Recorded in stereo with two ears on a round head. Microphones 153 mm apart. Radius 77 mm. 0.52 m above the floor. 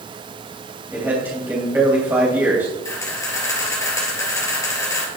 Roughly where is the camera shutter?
Centre.